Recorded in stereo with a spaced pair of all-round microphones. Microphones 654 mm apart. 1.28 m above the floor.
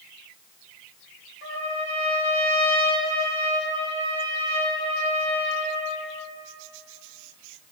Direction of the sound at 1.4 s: 40° left (ahead or behind).